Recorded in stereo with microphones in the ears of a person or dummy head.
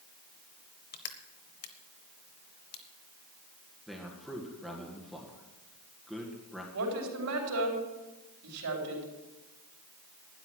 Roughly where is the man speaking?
Centre.